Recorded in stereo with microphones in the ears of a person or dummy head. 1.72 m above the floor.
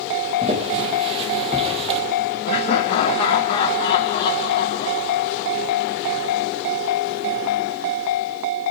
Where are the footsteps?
35° right (ahead or behind), 4 m; by 2.0 s 30° right (ahead or behind), 3 m.